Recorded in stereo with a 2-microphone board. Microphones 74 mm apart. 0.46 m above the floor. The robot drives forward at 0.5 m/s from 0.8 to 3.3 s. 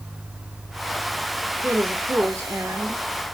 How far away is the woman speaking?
About 1.2 m.